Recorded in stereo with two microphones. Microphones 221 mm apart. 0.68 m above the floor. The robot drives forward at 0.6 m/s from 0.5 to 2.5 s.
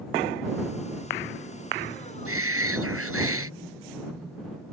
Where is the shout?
85° right.